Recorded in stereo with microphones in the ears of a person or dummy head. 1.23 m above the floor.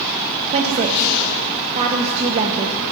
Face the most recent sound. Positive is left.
turn(degrees=-35)  # may be behind; listen again after turning